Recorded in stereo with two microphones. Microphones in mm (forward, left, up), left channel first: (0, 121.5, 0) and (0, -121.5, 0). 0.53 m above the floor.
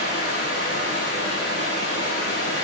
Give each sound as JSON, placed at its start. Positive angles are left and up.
{"t": 0.0, "sound": "running water", "side_deg": 70, "distance_m": 8.5}